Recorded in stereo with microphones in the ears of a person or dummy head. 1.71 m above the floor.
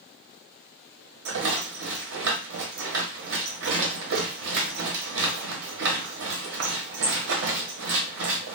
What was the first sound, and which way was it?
A rattle, 75° right (ahead or behind).